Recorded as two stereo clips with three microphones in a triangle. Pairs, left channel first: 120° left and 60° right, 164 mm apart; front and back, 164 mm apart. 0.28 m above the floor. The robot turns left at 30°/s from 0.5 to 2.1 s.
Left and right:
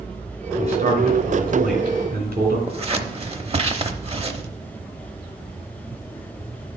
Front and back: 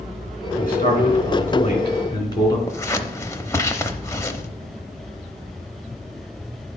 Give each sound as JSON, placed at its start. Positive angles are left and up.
{"t": 0.6, "sound": "a man speaking", "azimuth_deg": -15, "distance_m": 3.0}
{"t": 2.7, "sound": "scissors", "azimuth_deg": -60, "distance_m": 0.7}